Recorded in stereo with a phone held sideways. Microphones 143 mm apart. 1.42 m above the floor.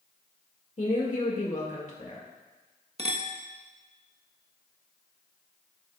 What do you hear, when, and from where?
0.8 s a woman speaking: 55° left (ahead or behind), 2 m
3.0 s a clink: 45° right (ahead or behind), 1.2 m